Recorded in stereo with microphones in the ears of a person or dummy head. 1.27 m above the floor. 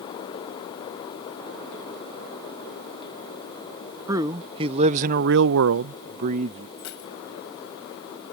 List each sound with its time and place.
4.1 s a man speaking: 20° right (ahead or behind); by 6.7 s 35° right (ahead or behind)
6.8 s keys jangling: 75° left (ahead or behind)